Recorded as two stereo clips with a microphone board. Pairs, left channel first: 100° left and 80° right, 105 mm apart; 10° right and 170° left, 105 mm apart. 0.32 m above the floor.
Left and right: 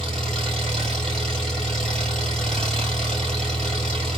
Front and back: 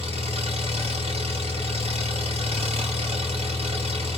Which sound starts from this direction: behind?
An engine running, at 0.0 s.